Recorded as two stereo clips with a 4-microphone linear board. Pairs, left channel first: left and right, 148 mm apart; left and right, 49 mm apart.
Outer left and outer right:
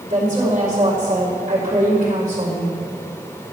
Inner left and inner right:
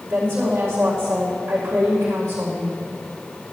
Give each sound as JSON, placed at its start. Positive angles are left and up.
{"t": 0.1, "sound": "a woman speaking", "side_deg": -60, "distance_m": 4.0}